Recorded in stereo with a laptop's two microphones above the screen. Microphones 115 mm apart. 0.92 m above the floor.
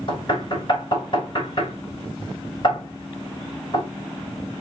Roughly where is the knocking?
Left.